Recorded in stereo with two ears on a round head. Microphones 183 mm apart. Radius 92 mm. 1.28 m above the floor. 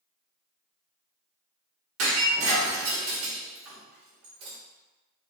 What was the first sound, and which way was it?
Breaking glass, 75° right (ahead or behind).